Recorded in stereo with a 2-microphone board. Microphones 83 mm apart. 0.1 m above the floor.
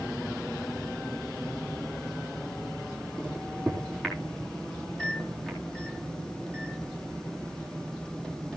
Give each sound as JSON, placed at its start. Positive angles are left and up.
{"t": 3.2, "sound": "a microwave", "side_deg": 10, "distance_m": 4.0}